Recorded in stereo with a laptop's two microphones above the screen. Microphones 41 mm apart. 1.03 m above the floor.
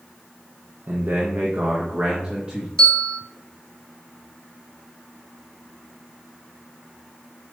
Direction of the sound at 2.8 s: 20° left (ahead or behind).